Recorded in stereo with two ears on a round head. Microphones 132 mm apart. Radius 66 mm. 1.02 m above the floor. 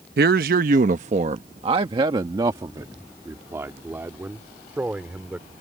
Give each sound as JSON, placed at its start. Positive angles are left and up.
{"t": 0.2, "sound": "a man speaking", "side_deg": -70}